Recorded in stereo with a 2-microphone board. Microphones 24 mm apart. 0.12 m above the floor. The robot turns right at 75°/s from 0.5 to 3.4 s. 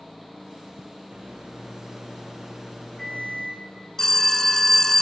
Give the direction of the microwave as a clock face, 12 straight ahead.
4 o'clock.